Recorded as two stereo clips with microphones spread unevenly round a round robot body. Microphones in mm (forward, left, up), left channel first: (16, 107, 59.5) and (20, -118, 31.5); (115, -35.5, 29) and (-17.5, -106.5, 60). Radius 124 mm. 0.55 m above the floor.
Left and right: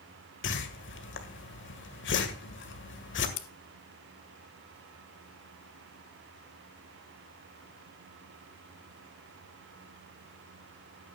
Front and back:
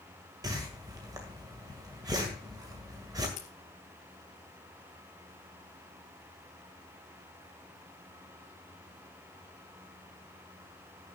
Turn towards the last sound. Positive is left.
turn(degrees=90)